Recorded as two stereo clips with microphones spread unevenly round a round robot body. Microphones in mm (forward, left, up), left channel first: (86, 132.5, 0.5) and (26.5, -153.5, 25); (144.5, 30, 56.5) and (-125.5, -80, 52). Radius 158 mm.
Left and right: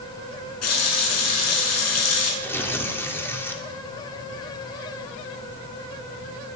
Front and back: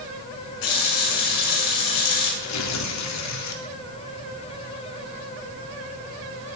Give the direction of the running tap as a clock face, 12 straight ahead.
11 o'clock.